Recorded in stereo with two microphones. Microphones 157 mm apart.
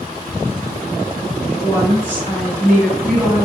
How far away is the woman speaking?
About 1.4 m.